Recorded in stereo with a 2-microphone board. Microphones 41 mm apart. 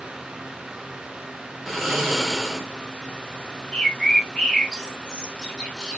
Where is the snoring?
Centre (ahead or behind), 0.8 m.